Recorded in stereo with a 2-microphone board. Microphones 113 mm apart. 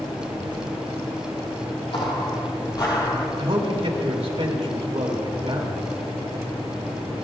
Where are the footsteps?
50° left (ahead or behind), 2.5 m; by 3.3 s 35° left (ahead or behind), 2 m.